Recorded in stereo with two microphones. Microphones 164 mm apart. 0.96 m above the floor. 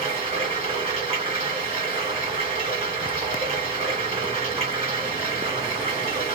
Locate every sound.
0.0 s running water: 40° right (ahead or behind), 1.6 m